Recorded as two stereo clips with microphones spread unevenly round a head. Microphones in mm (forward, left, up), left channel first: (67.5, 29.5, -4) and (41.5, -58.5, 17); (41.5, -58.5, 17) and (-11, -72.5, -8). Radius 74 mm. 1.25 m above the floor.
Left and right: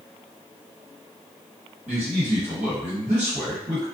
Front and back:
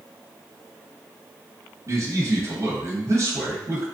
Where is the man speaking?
145° right, 1.5 m.